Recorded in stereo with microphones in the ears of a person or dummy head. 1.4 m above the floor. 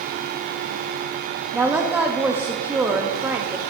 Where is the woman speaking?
5° right (ahead or behind), 0.6 m.